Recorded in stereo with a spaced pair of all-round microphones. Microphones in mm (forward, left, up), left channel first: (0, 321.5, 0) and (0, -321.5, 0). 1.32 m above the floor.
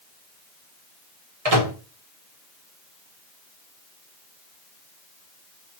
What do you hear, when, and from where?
1.4 s a microwave: 60° right (ahead or behind), 1.2 m